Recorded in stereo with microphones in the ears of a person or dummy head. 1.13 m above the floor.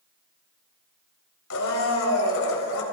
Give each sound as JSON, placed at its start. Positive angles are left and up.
{"t": 1.5, "sound": "a blender", "side_deg": 85, "distance_m": 4.0}